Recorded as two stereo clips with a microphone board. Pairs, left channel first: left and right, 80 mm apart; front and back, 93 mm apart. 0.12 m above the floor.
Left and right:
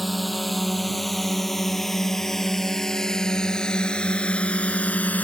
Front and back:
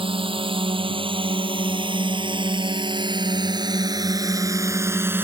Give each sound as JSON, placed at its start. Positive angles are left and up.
{"t": 0.0, "sound": "a drone", "azimuth_deg": 180}